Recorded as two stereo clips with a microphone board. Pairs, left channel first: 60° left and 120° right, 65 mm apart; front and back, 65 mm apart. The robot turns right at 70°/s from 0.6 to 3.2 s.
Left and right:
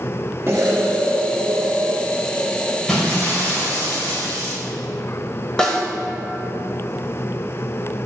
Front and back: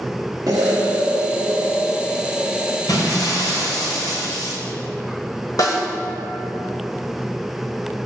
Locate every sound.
0.5 s an explosion: 170° right, 1.3 m; by 2.8 s 15° right, 1.3 m
2.9 s breaking glass: 25° right, 2.5 m; by 4.5 s straight ahead, 2.5 m
5.6 s a snare drum: 15° right, 1.3 m